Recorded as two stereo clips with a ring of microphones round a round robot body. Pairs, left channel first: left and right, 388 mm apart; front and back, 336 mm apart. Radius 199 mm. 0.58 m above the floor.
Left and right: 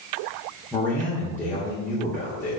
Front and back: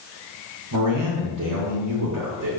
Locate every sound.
0.7 s a man speaking: 175° left, 1.9 m